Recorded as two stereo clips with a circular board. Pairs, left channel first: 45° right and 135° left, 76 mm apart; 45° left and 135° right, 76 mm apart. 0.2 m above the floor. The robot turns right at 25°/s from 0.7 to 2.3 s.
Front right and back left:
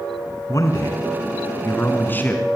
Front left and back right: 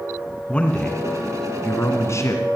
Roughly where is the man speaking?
Ahead right.